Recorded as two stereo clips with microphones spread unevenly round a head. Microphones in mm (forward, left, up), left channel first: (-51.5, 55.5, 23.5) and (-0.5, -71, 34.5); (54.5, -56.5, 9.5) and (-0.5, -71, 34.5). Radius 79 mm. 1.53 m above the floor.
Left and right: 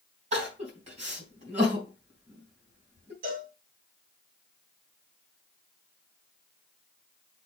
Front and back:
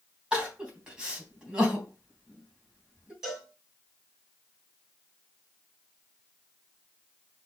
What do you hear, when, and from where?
0.3 s crying: 100° right, 3.5 m
3.2 s a cowbell: 85° right, 4 m